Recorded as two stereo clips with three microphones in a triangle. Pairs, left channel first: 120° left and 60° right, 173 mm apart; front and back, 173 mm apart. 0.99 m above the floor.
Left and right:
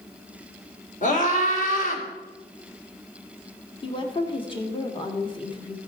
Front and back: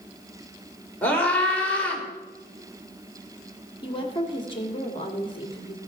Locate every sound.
1.0 s a scream: 80° left, 3.5 m
3.8 s a woman speaking: 60° left, 1.8 m